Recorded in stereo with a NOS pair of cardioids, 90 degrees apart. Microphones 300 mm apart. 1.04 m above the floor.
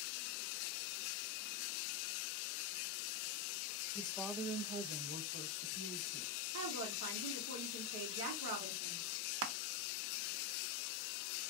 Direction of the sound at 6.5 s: 65° right.